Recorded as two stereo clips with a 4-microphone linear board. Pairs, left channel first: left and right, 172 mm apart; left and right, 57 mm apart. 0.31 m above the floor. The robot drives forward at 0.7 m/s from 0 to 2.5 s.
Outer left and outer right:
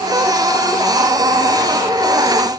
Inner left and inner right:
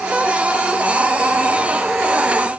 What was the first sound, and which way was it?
Only background noise.